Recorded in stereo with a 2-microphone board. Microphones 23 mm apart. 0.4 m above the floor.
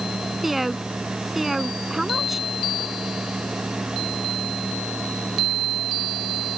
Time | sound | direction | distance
0.4 | a woman speaking | 10° right (ahead or behind) | ?